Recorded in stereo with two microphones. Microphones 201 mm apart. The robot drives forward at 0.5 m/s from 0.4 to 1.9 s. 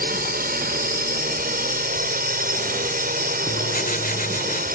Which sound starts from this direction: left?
Writing, at 3.5 s.